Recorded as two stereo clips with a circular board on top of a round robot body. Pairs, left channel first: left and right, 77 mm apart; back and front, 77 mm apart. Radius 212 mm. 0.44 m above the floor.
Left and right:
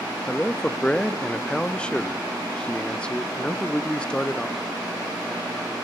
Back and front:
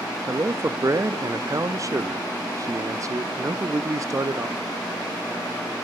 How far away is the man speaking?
About 0.9 m.